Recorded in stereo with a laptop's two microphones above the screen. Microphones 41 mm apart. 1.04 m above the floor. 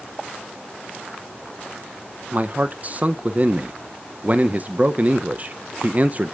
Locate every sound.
2.3 s a man speaking: 35° right (ahead or behind), 0.6 m